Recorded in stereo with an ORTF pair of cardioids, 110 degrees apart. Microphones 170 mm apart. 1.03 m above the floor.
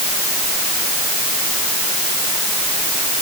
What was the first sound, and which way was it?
Only background noise.